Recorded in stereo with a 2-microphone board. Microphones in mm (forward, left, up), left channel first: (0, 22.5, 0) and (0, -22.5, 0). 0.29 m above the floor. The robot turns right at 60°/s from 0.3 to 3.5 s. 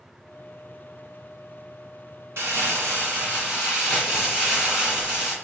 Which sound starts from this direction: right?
Crumpling, at 2.4 s.